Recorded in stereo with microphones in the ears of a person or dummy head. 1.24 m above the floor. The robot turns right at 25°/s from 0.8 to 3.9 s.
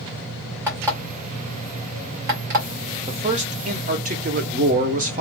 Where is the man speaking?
30° right (ahead or behind), 0.6 m; by 5.2 s 45° right (ahead or behind), 0.6 m.